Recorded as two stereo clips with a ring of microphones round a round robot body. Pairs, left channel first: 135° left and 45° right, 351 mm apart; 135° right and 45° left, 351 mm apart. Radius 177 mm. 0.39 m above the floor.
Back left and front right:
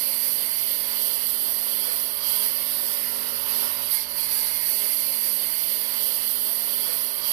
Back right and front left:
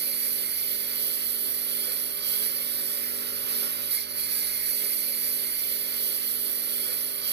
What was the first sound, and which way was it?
A lawn mower, 20° right.